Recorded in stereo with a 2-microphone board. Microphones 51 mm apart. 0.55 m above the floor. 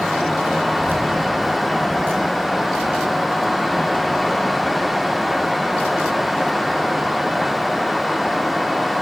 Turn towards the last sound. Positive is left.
turn(degrees=-40)  # may be behind; listen again after turning